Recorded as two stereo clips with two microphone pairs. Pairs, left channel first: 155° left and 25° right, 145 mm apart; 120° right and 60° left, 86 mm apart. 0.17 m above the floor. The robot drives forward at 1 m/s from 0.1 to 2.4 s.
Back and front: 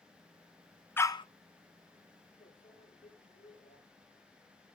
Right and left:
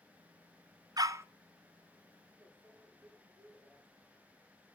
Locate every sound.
1.0 s a dog barking: 85° left, 0.7 m; by 1.2 s 110° left, 0.7 m
2.4 s a microwave: 125° left, 9.5 m